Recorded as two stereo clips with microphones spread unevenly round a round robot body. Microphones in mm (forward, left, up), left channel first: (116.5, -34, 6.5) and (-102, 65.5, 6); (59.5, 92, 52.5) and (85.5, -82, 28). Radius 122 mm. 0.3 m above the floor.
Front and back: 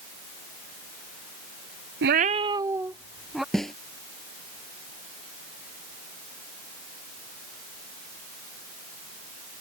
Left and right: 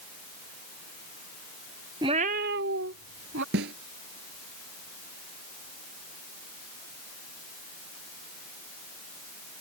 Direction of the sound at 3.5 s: 115° right.